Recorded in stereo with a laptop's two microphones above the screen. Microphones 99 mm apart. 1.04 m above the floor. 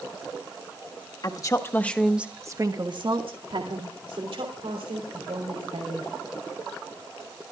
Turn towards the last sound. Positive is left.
turn(degrees=-85)